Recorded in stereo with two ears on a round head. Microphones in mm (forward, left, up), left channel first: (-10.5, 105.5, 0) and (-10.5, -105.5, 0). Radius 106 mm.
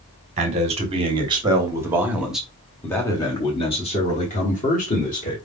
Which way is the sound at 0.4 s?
25° right (ahead or behind).